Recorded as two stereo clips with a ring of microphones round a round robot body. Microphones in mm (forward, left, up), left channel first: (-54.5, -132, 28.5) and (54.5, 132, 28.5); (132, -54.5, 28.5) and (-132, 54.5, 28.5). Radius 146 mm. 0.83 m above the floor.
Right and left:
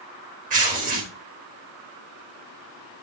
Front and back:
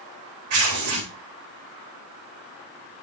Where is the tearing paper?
130° left, 3.5 m.